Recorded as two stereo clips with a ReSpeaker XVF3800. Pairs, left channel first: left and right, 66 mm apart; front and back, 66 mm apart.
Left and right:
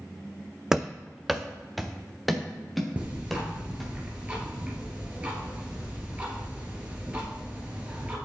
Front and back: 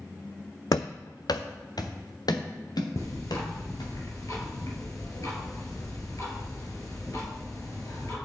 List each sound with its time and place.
0.7 s running footsteps: 10° right, 0.5 m; by 3.9 s straight ahead, 3.5 m
3.0 s ticking: 25° right, 3 m